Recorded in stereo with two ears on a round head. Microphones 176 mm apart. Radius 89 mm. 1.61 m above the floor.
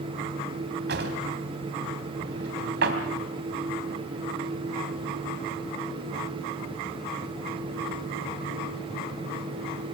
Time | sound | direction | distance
0.9 | a drawer | 60° right (ahead or behind) | 3 m